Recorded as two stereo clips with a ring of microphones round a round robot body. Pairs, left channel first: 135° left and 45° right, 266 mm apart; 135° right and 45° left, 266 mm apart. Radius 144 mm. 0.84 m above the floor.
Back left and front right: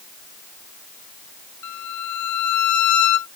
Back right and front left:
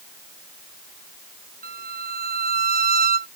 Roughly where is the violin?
Left.